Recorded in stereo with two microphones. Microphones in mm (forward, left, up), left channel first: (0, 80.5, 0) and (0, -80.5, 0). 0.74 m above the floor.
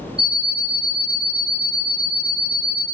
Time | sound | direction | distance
0.2 | an alarm clock | 85° right | 1.4 m